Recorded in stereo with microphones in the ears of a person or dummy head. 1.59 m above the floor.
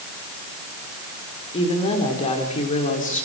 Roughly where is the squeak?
I don't hear a squeak.